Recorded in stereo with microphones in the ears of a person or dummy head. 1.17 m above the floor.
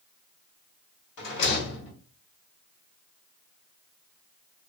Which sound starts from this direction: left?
A rattle, at 1.2 s.